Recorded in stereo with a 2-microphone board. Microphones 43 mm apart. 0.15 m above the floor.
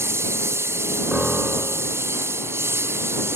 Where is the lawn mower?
85° right; by 3.4 s 75° right (ahead or behind).